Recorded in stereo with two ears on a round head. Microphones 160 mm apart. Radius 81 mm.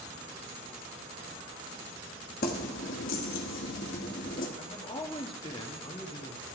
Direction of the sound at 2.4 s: 50° left (ahead or behind).